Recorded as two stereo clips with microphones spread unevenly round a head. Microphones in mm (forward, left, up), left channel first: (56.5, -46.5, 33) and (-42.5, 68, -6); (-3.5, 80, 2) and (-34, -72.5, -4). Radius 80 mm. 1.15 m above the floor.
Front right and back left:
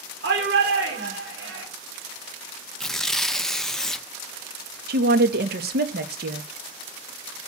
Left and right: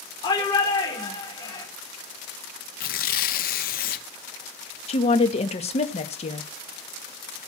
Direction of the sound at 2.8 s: 40° left.